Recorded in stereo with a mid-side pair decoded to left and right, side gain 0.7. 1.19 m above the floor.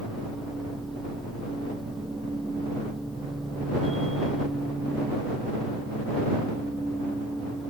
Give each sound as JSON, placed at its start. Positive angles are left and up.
{"t": 0.0, "sound": "a machine running", "azimuth_deg": -10}